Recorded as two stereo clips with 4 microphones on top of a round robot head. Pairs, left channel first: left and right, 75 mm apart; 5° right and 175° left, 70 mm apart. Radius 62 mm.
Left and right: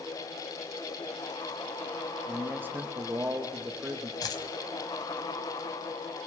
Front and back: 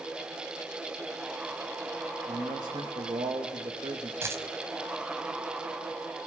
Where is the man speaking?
155° right, 2.5 m.